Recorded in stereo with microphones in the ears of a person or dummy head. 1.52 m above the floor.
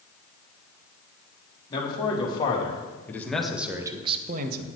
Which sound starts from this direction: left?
A man speaking, at 1.7 s.